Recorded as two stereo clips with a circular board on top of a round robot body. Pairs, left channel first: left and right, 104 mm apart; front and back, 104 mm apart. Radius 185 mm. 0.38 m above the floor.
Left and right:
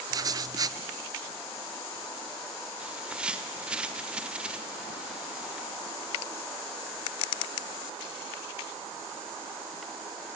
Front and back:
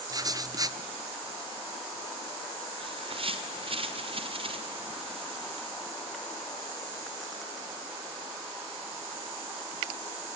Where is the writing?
135° right, 0.7 m.